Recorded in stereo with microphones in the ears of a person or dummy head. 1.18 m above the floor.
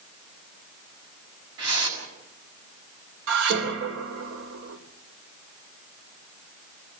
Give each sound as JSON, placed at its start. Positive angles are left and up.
{"t": 1.6, "sound": "a whoosh", "side_deg": -75, "distance_m": 6.0}
{"t": 3.3, "sound": "dishes clattering", "side_deg": -75, "distance_m": 2.5}